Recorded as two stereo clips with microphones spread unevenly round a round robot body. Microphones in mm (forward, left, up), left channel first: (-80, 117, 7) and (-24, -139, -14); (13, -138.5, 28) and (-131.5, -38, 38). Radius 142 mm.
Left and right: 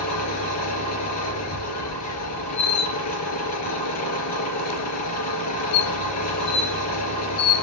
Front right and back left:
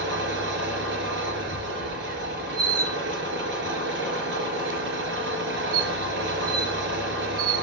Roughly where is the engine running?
Behind left.